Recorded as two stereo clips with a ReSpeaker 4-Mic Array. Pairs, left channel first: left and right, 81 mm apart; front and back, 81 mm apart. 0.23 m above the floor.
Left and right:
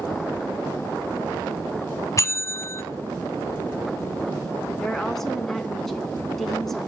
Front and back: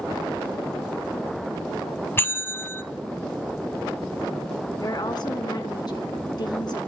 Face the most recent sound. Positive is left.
turn(degrees=5)